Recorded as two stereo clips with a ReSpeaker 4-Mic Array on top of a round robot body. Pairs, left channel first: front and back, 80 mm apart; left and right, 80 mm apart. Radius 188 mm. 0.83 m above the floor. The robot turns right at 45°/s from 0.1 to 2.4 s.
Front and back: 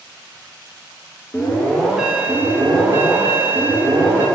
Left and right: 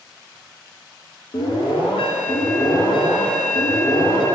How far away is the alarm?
About 0.9 m.